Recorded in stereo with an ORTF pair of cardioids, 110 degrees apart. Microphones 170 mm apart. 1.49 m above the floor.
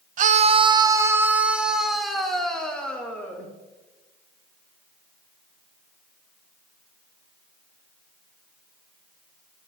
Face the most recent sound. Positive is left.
turn(degrees=10)